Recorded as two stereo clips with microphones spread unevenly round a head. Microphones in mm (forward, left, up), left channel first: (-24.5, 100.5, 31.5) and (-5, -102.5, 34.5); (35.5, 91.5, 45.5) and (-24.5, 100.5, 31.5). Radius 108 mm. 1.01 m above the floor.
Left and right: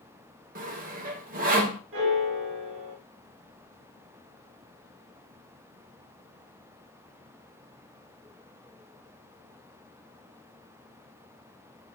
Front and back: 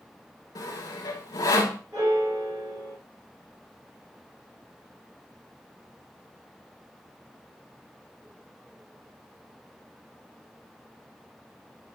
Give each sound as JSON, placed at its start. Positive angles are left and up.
{"t": 0.6, "sound": "sawing", "azimuth_deg": -35, "distance_m": 1.6}
{"t": 1.9, "sound": "a piano", "azimuth_deg": -110, "distance_m": 3.0}